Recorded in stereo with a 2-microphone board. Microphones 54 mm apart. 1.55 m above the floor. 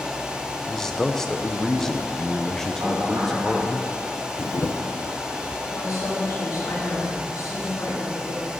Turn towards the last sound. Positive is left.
turn(degrees=85)